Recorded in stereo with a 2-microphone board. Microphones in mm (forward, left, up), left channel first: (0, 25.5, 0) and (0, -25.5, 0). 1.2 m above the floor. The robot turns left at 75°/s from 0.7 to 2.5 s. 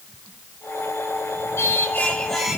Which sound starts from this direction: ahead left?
Singing, at 1.6 s.